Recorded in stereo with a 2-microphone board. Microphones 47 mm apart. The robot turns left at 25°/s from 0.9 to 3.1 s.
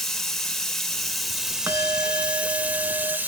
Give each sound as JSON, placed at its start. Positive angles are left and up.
{"t": 0.0, "sound": "running water", "azimuth_deg": 10, "distance_m": 1.4}
{"t": 1.7, "sound": "a bell", "azimuth_deg": -65, "distance_m": 0.8}